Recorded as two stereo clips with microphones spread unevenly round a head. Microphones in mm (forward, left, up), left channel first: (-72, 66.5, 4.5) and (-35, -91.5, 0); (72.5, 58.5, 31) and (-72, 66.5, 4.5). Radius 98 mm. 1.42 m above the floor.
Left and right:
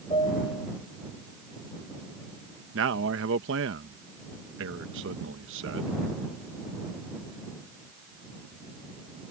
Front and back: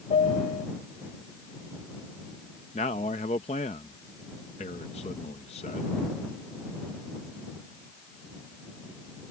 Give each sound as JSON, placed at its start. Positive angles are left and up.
{"t": 0.1, "sound": "a piano", "azimuth_deg": 35}
{"t": 2.7, "sound": "a man speaking", "azimuth_deg": -65}